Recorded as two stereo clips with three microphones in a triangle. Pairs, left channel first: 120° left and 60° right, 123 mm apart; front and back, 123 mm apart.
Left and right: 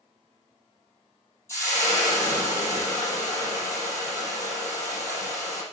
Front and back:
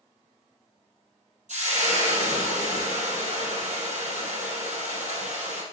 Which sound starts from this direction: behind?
Frying, at 1.5 s.